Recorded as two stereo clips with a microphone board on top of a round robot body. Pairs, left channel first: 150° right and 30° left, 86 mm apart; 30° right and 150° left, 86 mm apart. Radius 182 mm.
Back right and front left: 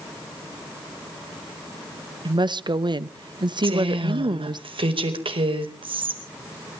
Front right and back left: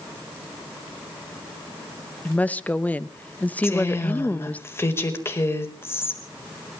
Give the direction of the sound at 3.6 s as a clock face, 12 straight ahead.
11 o'clock.